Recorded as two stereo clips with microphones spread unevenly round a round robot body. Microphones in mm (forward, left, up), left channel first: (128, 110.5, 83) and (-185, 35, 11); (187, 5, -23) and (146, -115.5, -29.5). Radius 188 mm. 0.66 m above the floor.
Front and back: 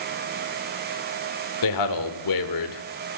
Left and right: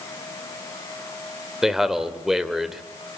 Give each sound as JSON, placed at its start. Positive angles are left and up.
{"t": 1.6, "sound": "a man speaking", "azimuth_deg": -25, "distance_m": 2.5}